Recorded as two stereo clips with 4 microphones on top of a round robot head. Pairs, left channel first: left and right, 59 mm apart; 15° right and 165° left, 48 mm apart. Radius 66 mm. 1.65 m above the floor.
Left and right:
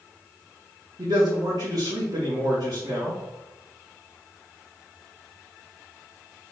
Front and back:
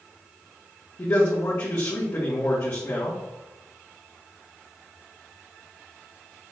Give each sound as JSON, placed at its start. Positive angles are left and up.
{"t": 1.0, "sound": "a man speaking", "azimuth_deg": -60, "distance_m": 2.5}